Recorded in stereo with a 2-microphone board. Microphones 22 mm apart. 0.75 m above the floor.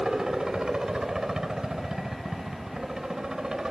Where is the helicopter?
35° right (ahead or behind).